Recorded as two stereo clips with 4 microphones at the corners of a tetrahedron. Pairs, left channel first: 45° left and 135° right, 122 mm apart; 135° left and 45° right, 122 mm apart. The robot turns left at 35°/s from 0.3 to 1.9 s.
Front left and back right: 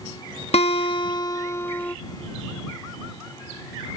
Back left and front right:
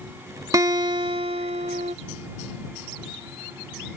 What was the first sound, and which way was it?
A guitar, 15° left.